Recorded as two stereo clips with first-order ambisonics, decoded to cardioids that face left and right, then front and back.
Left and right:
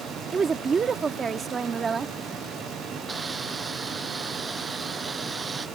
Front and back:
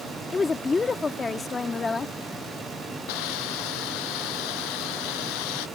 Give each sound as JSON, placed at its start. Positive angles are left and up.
{"t": 0.3, "sound": "a woman speaking", "azimuth_deg": -50}
{"t": 3.1, "sound": "a hiss", "azimuth_deg": -15}